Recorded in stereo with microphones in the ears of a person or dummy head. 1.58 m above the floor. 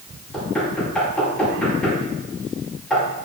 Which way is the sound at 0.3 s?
5° left (ahead or behind).